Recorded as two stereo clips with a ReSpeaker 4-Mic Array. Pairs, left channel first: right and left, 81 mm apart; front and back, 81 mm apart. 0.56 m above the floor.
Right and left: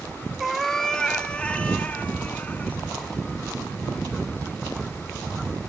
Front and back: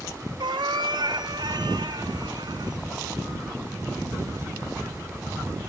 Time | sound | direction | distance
0.4 | a cat meowing | 175° left | 1.2 m